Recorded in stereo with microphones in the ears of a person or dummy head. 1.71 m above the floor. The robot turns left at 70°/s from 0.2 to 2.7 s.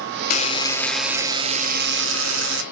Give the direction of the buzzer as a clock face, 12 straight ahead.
10 o'clock.